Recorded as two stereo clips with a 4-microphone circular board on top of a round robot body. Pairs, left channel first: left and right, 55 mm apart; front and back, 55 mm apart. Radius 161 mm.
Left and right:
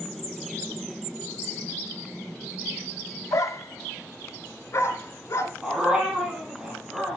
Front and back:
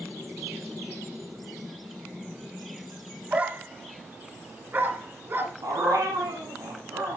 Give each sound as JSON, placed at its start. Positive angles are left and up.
{"t": 3.3, "sound": "a dog barking", "azimuth_deg": 115, "distance_m": 1.1}
{"t": 5.6, "sound": "a dog barking", "azimuth_deg": -170, "distance_m": 5.5}